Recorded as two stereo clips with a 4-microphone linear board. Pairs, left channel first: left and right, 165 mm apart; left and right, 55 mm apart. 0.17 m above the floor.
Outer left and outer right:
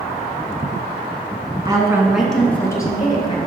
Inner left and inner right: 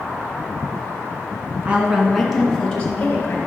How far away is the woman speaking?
About 1.5 m.